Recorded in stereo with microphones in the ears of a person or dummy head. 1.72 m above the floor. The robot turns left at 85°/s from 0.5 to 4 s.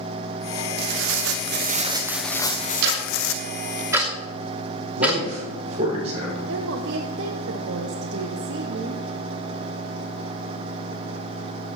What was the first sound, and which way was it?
Tearing paper, 65° right.